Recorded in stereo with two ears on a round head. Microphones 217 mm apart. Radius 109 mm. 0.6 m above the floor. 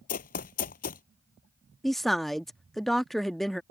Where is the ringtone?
I don't hear a ringtone.